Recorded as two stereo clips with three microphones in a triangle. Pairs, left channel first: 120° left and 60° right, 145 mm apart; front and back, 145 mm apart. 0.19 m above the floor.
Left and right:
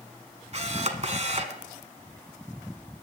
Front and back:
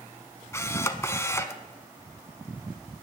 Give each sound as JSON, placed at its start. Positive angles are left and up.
{"t": 0.5, "sound": "a camera shutter", "azimuth_deg": -65, "distance_m": 0.9}